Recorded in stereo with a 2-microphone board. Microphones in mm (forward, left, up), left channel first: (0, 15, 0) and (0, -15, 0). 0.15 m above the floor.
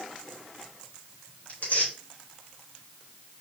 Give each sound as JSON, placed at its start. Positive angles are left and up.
{"t": 1.5, "sound": "tearing paper", "side_deg": 80, "distance_m": 3.5}